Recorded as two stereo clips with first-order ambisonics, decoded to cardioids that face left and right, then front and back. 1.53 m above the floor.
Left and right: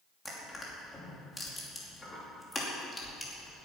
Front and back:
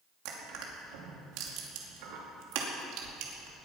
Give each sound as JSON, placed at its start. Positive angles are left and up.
{"t": 0.2, "sound": "crushing", "azimuth_deg": 170, "distance_m": 2.5}